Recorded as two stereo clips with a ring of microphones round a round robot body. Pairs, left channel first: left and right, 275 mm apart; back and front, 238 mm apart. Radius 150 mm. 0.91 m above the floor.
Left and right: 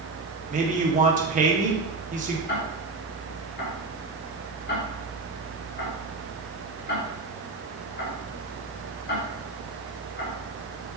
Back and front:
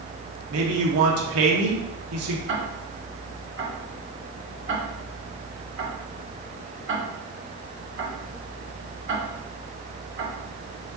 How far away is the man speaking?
About 1.9 m.